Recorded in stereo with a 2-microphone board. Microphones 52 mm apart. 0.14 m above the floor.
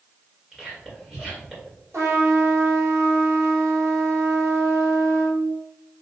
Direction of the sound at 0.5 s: 15° right (ahead or behind).